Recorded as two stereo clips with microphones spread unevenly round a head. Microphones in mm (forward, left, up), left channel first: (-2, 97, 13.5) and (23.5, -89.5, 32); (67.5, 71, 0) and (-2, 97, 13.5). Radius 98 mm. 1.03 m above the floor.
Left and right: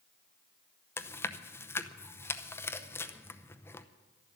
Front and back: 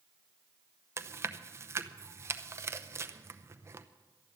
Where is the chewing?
145° left, 0.7 m.